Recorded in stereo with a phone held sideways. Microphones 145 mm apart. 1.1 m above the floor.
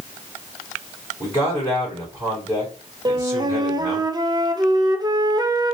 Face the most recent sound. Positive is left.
turn(degrees=-30)  # may be behind; listen again after turning